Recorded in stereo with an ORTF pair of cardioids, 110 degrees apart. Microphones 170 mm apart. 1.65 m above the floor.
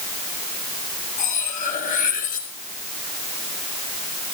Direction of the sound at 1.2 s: 55° left.